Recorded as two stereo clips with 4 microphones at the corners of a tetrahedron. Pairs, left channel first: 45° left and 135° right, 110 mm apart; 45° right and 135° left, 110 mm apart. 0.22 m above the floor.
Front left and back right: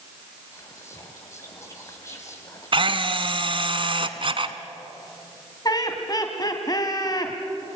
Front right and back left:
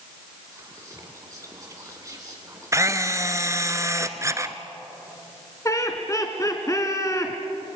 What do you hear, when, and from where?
0.5 s whispering: 95° left, 1.7 m
2.7 s a camera shutter: 165° right, 1.2 m
5.7 s laughter: 5° left, 1.8 m